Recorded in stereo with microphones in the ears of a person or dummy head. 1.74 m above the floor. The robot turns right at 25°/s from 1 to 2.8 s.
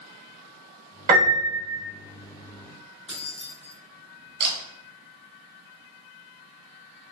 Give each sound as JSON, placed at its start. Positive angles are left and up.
{"t": 1.1, "sound": "a piano", "side_deg": -40, "distance_m": 1.2}
{"t": 3.1, "sound": "keys jangling", "side_deg": 5, "distance_m": 1.3}
{"t": 4.4, "sound": "a camera shutter", "side_deg": -45, "distance_m": 1.2}